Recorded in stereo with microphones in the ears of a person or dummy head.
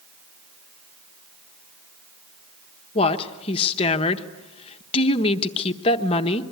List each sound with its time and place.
3.0 s a woman speaking: 35° left (ahead or behind), 1.3 m